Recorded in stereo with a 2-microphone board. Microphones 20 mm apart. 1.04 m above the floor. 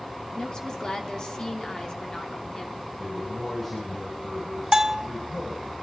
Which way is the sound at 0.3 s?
35° left (ahead or behind).